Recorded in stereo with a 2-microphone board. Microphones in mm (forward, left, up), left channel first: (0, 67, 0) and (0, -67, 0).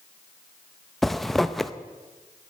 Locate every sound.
1.0 s a zipper: centre (ahead or behind), 0.5 m